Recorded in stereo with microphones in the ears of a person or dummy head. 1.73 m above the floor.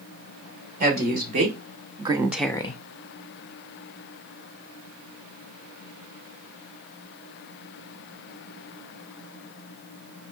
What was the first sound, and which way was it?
A woman speaking, 45° right (ahead or behind).